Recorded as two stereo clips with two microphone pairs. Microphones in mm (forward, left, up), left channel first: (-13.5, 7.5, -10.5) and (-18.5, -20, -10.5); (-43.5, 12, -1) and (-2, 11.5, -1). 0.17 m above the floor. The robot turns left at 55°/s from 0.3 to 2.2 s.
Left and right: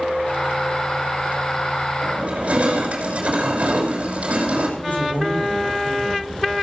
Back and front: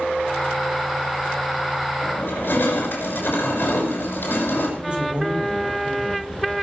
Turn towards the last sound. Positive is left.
turn(degrees=65)